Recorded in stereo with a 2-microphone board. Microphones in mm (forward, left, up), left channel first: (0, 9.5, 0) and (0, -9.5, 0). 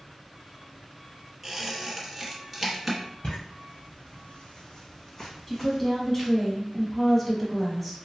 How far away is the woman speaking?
About 1.1 m.